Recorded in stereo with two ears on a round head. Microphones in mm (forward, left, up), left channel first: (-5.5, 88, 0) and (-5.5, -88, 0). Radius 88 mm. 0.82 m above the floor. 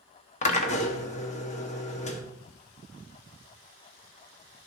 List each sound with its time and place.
0.4 s a drill: 35° left (ahead or behind), 1.1 m